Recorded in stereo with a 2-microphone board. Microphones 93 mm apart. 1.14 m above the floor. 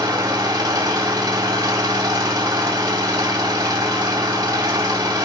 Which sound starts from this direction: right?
An engine running, at 0.0 s.